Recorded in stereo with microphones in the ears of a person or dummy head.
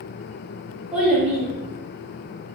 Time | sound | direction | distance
0.9 | a child speaking | 5° right (ahead or behind) | 1.6 m